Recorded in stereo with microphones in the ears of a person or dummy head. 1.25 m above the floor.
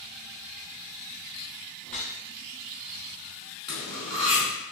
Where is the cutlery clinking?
5° right (ahead or behind), 1.5 m.